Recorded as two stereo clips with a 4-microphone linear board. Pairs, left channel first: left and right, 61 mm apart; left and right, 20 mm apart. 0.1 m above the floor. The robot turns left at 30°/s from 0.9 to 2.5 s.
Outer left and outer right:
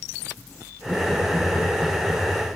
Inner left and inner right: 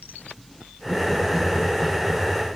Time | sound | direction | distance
0.8 | laughter | 15° right (ahead or behind) | 5.5 m